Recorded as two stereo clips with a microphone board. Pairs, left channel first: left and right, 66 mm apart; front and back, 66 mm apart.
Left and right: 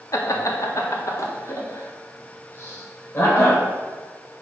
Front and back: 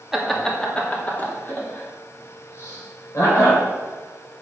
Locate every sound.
0.1 s laughter: 95° left, 1.6 m; by 3.6 s 35° left, 4.5 m